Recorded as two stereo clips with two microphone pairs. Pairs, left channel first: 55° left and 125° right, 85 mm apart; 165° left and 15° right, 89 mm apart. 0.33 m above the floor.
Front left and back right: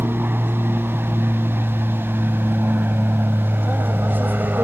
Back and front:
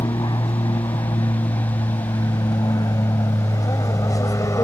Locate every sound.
0.0 s an aircraft: 170° left; by 4.7 s straight behind